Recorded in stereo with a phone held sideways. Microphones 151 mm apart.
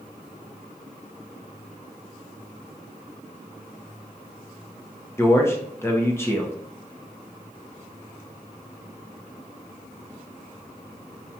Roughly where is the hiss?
I don't hear a hiss.